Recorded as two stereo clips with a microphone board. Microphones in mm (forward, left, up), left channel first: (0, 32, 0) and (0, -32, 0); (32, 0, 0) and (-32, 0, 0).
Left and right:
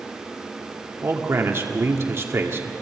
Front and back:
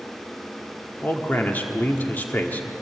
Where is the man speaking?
55° right, 1.7 m.